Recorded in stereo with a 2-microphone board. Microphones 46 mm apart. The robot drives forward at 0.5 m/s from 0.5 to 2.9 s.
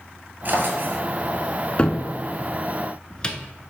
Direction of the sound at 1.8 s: 25° left (ahead or behind).